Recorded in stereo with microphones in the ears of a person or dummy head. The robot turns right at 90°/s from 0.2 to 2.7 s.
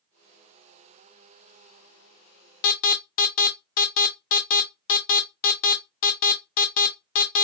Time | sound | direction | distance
2.6 | an alarm | 45° left (ahead or behind) | 0.6 m